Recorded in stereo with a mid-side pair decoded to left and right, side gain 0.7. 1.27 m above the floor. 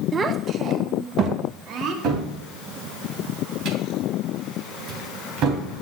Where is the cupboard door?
60° right, 3 m.